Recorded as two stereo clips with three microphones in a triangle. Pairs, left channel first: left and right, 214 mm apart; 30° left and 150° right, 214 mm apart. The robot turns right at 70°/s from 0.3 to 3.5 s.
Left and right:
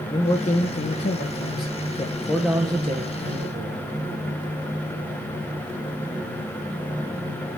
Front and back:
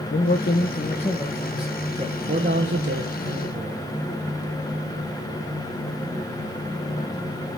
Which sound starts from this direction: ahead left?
A man speaking, at 0.1 s.